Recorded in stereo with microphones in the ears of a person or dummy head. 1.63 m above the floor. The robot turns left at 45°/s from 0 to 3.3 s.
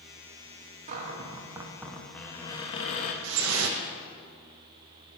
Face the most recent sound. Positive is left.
turn(degrees=-75)  # may be behind; listen again after turning